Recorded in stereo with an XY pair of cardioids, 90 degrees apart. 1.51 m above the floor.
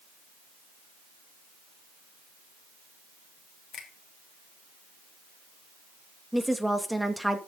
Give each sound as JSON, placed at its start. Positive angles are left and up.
{"t": 3.7, "sound": "a finger snap", "azimuth_deg": 65, "distance_m": 3.0}
{"t": 6.3, "sound": "a woman speaking", "azimuth_deg": -5, "distance_m": 2.5}